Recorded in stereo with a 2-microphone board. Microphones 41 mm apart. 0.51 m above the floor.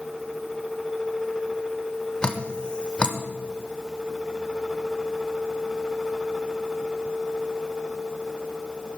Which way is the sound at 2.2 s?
25° left (ahead or behind).